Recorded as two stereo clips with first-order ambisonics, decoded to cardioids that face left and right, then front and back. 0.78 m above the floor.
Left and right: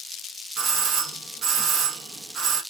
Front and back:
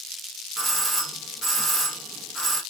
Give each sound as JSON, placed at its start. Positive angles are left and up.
{"t": 0.6, "sound": "a doorbell", "azimuth_deg": -105, "distance_m": 1.0}